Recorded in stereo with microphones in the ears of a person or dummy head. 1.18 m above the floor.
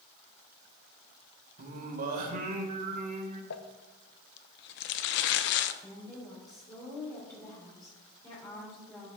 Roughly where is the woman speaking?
Left.